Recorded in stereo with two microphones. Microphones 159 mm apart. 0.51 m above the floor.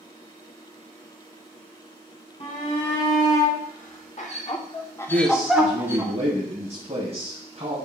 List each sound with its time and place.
2.4 s a shout: 50° left (ahead or behind), 3 m; by 6.1 s 20° right (ahead or behind), 1.7 m
5.1 s a man speaking: 40° right (ahead or behind), 3 m